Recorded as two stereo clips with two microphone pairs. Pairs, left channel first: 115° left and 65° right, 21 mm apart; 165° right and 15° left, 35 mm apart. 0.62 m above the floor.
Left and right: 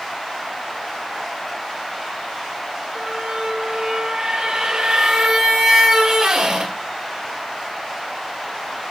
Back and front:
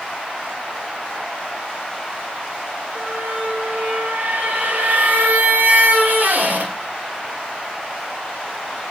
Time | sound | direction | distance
3.0 | a squeak | 15° right | 2.0 m